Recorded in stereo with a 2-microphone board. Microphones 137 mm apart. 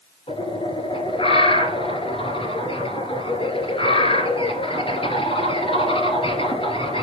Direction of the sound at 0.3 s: 40° left (ahead or behind).